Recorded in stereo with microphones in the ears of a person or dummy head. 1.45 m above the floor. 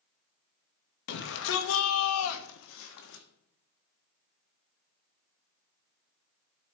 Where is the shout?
60° left (ahead or behind), 1.5 m; by 3.2 s 65° left (ahead or behind), 1.2 m.